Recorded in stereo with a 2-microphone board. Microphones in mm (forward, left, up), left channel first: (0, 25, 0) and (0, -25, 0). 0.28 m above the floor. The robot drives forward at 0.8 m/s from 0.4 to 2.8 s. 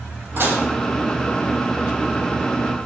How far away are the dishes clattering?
About 7 m.